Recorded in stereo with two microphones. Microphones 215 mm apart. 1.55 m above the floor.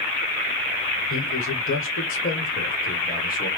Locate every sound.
1.1 s a man speaking: 70° left (ahead or behind), 1.1 m; by 3.5 s 40° left (ahead or behind), 1.9 m